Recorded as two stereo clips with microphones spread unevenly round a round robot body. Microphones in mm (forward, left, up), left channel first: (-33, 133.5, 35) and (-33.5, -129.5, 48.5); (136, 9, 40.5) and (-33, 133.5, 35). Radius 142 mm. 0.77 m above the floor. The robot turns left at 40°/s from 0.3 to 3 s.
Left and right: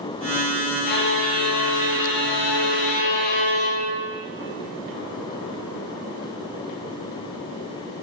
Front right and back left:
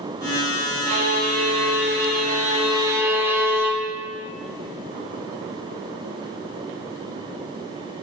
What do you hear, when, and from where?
0.9 s a violin: 150° left, 0.9 m; by 4.0 s 65° left, 0.9 m